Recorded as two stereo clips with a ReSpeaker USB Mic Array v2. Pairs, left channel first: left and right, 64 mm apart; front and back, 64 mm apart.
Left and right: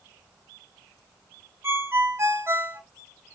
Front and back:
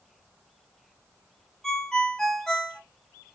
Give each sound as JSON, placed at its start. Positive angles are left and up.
{"t": 1.6, "sound": "a ringtone", "azimuth_deg": -80, "distance_m": 0.5}